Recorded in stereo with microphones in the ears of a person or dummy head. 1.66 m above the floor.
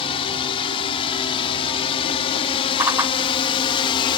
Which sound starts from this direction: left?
A drone, at 0.0 s.